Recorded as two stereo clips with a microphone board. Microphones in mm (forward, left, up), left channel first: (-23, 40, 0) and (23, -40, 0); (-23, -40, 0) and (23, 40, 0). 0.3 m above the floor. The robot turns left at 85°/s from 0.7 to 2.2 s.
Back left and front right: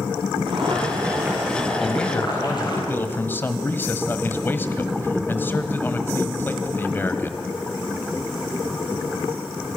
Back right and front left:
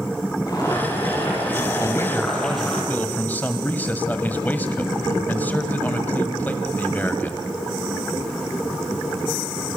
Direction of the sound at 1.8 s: 150° right.